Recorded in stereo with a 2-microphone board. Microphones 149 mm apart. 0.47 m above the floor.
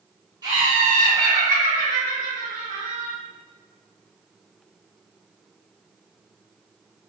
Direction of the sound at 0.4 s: 30° right (ahead or behind).